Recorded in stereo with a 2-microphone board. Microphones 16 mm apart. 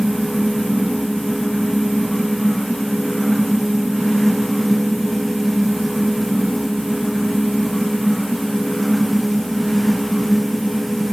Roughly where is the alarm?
I don't hear an alarm.